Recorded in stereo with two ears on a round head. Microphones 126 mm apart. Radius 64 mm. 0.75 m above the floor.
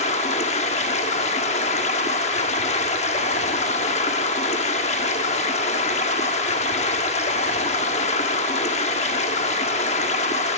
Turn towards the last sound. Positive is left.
turn(degrees=50)  # may be behind; listen again after turning